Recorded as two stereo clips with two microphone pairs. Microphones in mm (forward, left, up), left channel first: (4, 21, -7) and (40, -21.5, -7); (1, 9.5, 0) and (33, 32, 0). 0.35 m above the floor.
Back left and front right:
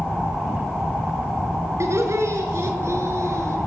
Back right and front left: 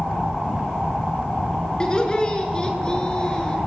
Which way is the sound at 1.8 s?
80° right.